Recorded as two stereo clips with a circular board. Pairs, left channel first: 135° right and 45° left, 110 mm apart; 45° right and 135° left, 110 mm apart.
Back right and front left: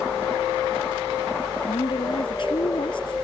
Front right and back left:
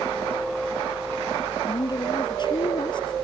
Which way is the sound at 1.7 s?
90° right.